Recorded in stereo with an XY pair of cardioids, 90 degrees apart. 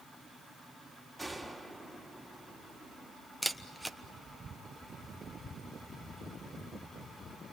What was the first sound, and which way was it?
A gunshot, 5° right.